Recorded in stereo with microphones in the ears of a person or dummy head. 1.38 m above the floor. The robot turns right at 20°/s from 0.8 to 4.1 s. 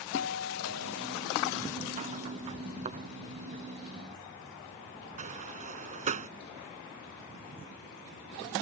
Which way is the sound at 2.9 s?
40° right (ahead or behind).